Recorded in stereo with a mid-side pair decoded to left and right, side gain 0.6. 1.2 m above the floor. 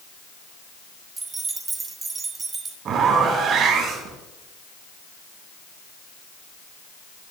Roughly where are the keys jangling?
Ahead right.